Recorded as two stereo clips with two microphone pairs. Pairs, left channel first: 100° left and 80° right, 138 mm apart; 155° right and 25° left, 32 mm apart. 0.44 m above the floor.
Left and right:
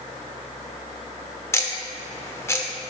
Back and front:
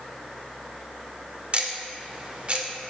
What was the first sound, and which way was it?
Ticking, 40° left.